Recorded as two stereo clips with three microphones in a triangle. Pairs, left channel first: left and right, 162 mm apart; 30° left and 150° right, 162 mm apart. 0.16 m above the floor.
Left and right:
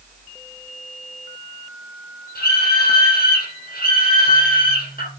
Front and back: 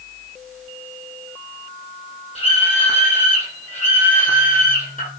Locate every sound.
2.4 s a scream: 80° left, 6 m; by 5.1 s 65° left, 7.5 m